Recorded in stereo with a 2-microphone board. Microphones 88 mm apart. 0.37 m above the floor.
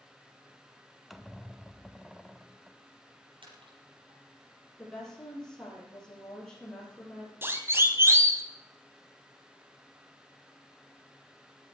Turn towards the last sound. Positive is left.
turn(degrees=-35)  # may be behind; listen again after turning